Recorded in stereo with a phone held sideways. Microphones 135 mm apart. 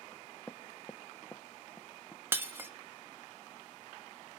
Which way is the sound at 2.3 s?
15° right (ahead or behind).